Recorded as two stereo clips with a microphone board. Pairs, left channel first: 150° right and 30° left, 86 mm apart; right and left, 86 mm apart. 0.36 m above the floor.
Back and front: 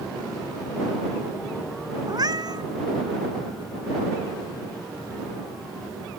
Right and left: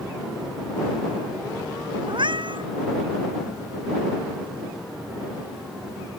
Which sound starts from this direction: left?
A cat meowing, at 2.1 s.